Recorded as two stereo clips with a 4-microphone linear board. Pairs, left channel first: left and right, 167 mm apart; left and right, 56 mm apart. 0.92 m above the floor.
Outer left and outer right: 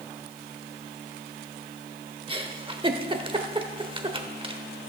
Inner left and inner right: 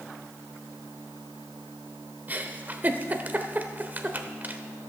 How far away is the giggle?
About 1.0 m.